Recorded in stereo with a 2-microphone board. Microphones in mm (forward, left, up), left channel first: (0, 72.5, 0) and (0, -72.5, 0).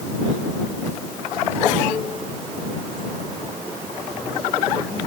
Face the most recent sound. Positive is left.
No sound to turn to.